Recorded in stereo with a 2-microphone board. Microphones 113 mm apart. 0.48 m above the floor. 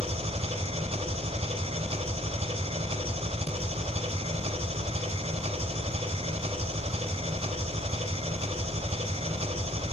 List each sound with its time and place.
0.0 s an engine running: 65° right (ahead or behind), 1.2 m